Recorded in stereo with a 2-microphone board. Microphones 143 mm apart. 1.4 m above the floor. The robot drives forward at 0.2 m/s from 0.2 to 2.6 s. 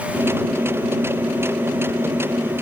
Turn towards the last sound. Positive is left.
No sound to turn to.